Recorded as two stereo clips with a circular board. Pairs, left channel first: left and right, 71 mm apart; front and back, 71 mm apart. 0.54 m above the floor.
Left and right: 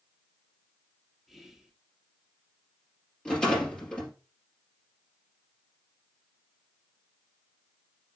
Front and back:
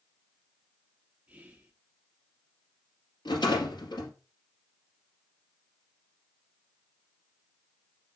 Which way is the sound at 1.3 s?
165° right.